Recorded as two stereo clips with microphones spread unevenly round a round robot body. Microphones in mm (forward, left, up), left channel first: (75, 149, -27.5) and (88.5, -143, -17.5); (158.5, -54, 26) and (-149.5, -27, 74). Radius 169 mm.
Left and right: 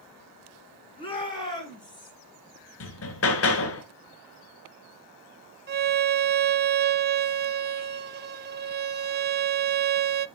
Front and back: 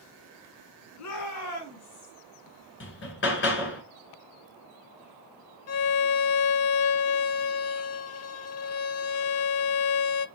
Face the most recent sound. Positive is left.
turn(degrees=-30)